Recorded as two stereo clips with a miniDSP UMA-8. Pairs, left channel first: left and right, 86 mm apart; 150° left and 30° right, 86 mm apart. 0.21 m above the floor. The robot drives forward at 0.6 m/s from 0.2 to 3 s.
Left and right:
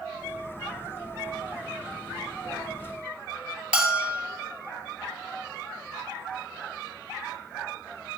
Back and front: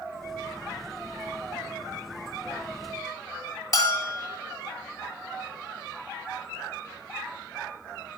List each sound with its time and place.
3.7 s a bell: 165° right, 2 m